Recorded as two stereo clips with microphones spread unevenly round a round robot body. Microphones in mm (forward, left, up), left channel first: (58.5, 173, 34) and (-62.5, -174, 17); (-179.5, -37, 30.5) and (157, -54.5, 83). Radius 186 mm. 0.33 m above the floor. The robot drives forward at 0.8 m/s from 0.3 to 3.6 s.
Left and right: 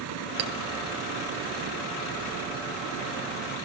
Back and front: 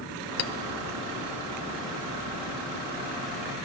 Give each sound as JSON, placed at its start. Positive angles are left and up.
{"t": 0.4, "sound": "a clink", "azimuth_deg": -150, "distance_m": 0.5}